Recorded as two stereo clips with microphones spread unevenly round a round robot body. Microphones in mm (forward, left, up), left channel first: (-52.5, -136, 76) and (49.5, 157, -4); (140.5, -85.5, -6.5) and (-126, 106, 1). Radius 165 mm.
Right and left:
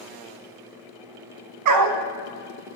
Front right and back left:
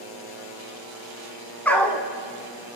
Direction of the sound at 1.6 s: 50° left.